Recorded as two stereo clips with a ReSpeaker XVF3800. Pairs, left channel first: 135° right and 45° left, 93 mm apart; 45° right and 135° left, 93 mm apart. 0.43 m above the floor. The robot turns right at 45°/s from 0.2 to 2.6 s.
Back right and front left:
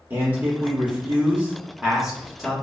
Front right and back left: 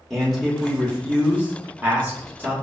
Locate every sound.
0.1 s a man speaking: 35° left, 0.8 m; by 2.5 s 145° left, 0.8 m